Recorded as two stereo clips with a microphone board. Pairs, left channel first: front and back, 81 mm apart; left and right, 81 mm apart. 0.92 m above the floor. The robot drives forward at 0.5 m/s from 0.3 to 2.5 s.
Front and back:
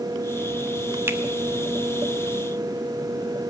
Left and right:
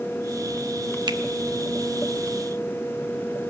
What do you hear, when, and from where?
1.1 s a finger snap: 120° right, 1.1 m